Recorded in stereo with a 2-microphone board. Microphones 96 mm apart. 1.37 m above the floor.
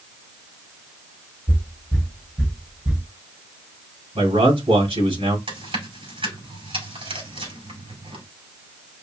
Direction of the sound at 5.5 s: 75° right (ahead or behind).